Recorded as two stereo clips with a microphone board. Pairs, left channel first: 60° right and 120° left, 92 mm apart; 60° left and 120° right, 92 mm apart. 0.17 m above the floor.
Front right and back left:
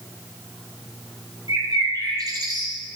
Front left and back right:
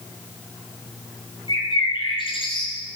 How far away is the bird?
About 3.5 m.